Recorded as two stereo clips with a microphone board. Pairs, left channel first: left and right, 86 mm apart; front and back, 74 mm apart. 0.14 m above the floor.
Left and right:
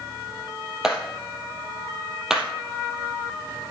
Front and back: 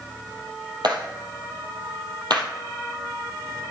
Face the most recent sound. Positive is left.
turn(degrees=-175)